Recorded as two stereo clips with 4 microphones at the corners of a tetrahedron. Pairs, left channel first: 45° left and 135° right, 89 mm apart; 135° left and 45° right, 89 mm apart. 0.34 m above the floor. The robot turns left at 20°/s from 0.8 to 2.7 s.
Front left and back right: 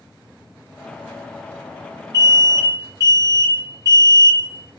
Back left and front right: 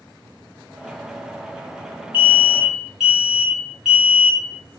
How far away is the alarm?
About 1.1 m.